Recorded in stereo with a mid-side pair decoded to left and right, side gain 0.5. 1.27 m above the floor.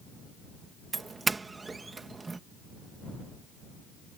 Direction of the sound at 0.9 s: 25° right.